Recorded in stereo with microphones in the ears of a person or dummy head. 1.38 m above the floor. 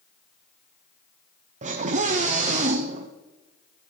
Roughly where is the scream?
Right.